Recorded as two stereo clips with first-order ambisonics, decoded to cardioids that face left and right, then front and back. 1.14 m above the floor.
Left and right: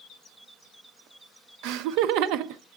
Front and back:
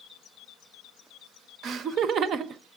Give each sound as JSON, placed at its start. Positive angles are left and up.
{"t": 1.6, "sound": "laughter", "azimuth_deg": -120, "distance_m": 0.5}